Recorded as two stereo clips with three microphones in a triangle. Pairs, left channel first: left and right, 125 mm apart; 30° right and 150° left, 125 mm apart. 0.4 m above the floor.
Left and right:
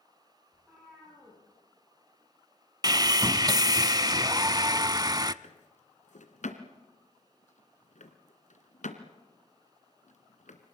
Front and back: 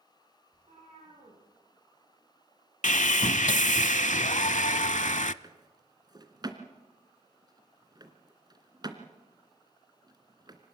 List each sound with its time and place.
0.5 s a cat meowing: 175° right, 9.5 m
2.8 s sawing: 30° right, 0.6 m
5.4 s a drawer: 95° left, 2 m